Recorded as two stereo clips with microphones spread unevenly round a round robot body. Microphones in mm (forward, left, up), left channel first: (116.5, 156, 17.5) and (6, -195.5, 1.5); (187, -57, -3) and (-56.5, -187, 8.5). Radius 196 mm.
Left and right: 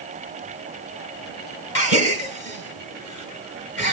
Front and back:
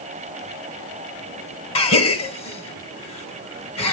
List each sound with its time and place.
1.8 s a gasp: 25° left, 2.5 m